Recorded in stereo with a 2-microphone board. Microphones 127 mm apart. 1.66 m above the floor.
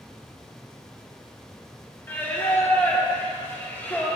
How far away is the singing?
About 1.4 m.